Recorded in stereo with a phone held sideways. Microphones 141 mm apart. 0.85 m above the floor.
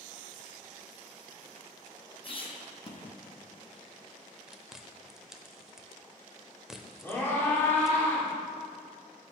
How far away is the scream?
About 2.5 m.